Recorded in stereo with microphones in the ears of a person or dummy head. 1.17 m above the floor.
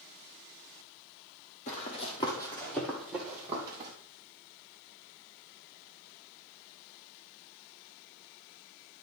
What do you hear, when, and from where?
1.7 s running footsteps: 45° left (ahead or behind), 2.0 m; by 3.9 s 15° right (ahead or behind), 2 m